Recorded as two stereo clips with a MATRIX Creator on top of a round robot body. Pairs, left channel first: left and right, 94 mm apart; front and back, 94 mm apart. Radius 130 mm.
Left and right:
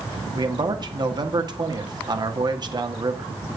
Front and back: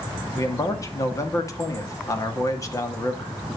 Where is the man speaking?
55° right, 2.5 m.